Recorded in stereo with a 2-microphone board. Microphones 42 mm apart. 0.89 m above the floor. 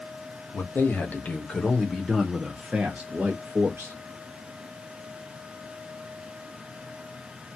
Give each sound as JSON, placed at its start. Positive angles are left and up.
{"t": 0.5, "sound": "a man speaking", "side_deg": 50, "distance_m": 1.3}